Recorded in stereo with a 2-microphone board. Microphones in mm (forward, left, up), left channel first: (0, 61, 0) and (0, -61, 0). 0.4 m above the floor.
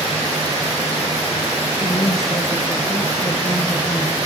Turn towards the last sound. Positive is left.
turn(degrees=25)  # may be behind; listen again after turning